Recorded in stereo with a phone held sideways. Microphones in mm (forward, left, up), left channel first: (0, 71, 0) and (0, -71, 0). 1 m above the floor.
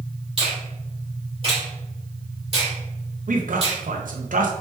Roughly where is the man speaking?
Right.